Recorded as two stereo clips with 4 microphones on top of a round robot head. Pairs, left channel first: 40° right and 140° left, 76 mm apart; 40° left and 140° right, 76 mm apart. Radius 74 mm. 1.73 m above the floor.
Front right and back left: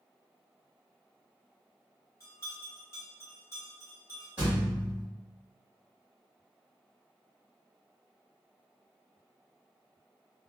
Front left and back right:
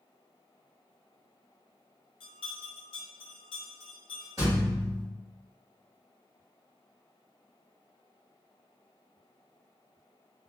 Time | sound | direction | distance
2.2 | a bell | 15° left | 0.6 m
4.4 | a thud | 160° right | 1.3 m